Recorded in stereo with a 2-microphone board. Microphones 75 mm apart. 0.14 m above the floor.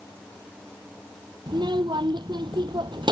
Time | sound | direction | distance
1.5 | a child speaking | 75° right (ahead or behind) | ?